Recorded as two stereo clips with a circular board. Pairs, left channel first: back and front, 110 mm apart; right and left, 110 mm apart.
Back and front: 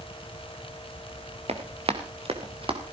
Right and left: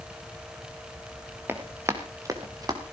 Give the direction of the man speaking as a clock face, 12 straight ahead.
I don't hear a man speaking.